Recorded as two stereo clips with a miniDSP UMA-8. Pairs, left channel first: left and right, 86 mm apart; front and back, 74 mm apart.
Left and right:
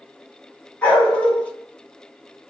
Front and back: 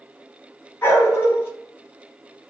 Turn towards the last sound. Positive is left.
turn(degrees=30)